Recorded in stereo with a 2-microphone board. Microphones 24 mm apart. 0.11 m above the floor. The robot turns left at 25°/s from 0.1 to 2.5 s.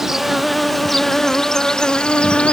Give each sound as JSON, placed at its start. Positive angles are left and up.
{"t": 0.0, "sound": "an insect", "azimuth_deg": -165}